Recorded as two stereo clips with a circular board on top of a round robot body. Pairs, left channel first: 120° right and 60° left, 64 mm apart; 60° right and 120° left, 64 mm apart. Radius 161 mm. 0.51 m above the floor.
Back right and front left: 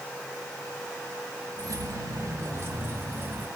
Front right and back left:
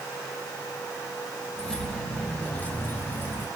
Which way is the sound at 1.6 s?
20° left.